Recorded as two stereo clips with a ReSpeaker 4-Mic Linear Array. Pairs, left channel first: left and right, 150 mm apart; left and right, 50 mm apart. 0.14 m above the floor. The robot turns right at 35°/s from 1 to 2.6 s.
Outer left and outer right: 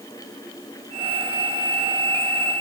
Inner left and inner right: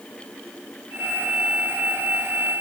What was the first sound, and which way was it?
Only background noise.